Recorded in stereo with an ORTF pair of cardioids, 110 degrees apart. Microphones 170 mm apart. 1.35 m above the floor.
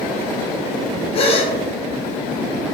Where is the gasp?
35° left, 0.7 m.